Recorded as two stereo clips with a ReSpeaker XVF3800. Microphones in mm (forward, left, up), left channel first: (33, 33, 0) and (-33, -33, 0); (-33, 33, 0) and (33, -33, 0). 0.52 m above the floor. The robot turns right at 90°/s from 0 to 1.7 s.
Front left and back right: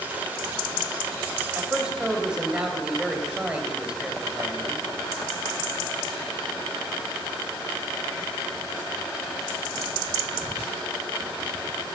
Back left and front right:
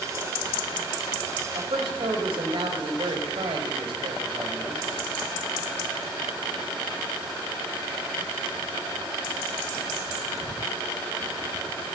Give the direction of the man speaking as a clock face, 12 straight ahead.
2 o'clock.